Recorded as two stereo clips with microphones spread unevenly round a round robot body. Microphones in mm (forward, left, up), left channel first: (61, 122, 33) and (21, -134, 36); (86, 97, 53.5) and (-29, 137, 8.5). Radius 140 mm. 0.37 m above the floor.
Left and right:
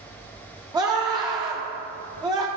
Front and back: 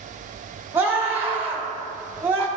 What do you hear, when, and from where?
0.7 s a scream: 170° right, 1.0 m